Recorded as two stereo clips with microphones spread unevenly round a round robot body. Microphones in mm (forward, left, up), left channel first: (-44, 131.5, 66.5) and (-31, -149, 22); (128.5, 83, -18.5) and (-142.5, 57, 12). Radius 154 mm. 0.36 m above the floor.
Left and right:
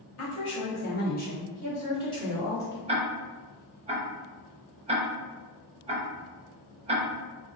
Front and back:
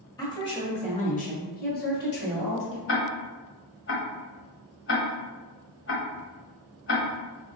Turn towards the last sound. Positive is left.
turn(degrees=-25)